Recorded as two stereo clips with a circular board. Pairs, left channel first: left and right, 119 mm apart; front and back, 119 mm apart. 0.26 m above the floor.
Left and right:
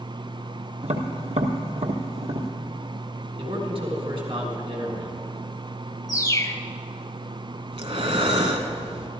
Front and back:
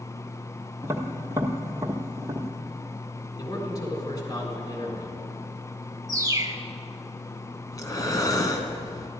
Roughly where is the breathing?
Ahead right.